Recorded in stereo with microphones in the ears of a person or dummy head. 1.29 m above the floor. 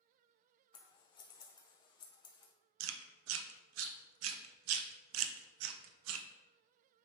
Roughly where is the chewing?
Right.